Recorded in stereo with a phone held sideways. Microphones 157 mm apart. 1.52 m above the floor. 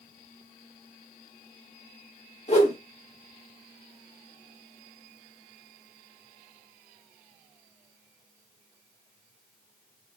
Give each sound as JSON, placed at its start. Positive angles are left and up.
{"t": 2.5, "sound": "a whoosh", "side_deg": 45, "distance_m": 1.6}